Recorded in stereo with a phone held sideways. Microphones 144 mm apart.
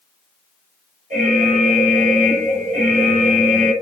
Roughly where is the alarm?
Right.